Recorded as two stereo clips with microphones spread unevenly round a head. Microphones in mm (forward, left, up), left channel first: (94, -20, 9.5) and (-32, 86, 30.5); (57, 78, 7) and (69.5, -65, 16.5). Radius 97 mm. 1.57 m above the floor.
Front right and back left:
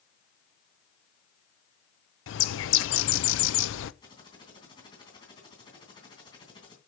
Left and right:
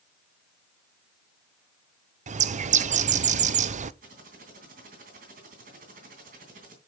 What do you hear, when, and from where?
2.3 s a bird: 50° right, 0.6 m
4.0 s typing on a keyboard: 110° right, 2.5 m